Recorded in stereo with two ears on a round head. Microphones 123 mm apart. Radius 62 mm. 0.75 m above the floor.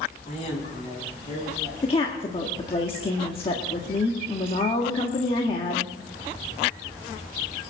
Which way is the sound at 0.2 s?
45° left (ahead or behind).